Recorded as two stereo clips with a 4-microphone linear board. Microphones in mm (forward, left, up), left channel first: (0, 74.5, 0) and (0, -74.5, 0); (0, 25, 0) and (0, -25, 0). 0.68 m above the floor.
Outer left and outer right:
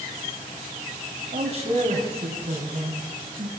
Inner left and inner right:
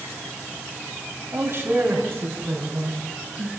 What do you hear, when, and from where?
1.3 s a man speaking: 45° right (ahead or behind), 4 m; by 3.5 s 40° right (ahead or behind), 5.5 m